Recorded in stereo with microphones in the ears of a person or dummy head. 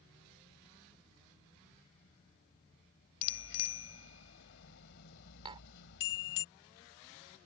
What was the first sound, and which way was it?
A bicycle bell, 65° left (ahead or behind).